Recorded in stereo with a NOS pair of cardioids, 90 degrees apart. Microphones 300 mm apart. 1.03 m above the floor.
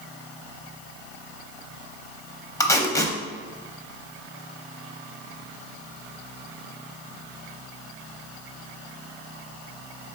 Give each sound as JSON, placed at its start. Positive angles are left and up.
{"t": 2.6, "sound": "tape being pulled", "azimuth_deg": 10, "distance_m": 0.5}